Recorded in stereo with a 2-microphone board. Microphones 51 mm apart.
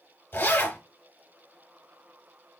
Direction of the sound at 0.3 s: 45° left (ahead or behind).